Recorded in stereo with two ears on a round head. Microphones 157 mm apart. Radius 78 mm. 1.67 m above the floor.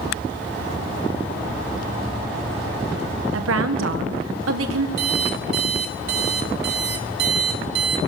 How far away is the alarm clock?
About 2.5 m.